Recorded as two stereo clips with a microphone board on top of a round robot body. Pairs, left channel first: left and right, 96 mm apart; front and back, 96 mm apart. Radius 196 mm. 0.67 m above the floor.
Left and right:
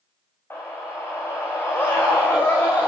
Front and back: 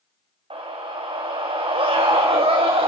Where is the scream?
155° left, 3.5 m.